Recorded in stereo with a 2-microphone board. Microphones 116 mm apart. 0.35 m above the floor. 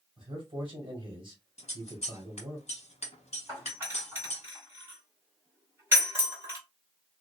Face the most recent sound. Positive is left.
turn(degrees=-20)  # may be behind; listen again after turning